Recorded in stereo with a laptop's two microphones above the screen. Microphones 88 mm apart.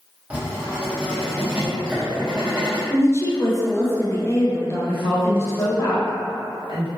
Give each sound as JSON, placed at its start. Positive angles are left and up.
{"t": 0.3, "sound": "writing", "side_deg": -15, "distance_m": 0.6}
{"t": 2.9, "sound": "a woman speaking", "side_deg": 30, "distance_m": 0.5}
{"t": 4.8, "sound": "a woman speaking", "side_deg": 70, "distance_m": 1.4}